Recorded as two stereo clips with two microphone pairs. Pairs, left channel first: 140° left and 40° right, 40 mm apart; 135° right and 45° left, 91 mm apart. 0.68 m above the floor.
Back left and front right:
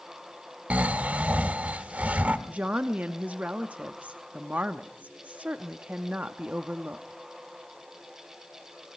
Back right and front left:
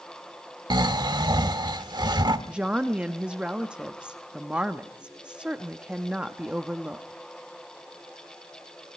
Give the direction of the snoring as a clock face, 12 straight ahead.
12 o'clock.